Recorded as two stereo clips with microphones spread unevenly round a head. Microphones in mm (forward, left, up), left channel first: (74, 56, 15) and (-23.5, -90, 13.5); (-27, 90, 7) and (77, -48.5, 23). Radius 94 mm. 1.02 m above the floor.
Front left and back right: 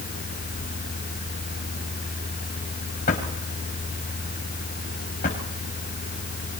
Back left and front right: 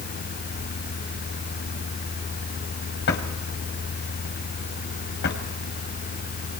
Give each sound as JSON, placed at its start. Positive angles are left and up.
{"t": 3.1, "sound": "a drawer", "azimuth_deg": 105, "distance_m": 3.0}